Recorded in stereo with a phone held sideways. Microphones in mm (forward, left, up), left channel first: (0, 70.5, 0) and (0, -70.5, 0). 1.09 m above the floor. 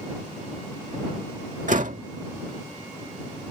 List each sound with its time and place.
1.7 s a door slam: 65° right (ahead or behind)